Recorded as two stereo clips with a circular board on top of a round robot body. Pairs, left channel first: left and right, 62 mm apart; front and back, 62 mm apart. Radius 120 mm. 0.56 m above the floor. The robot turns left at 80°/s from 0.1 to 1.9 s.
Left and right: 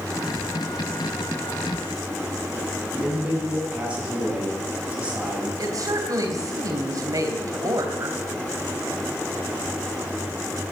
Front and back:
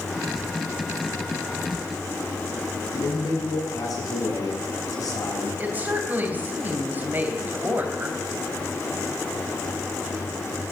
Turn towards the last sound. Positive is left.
turn(degrees=-115)